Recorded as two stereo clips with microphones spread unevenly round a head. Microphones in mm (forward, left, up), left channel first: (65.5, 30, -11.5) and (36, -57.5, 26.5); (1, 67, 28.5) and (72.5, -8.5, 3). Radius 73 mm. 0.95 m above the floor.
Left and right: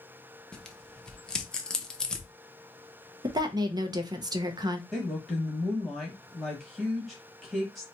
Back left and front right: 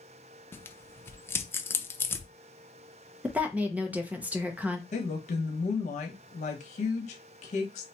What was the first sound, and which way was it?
Tearing paper, 60° left.